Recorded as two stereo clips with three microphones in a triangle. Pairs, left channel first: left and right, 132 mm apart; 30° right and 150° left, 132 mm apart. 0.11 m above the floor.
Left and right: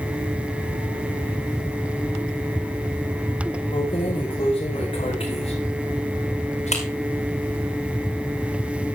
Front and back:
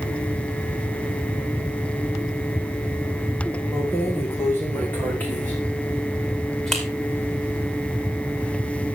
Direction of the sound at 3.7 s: 40° left.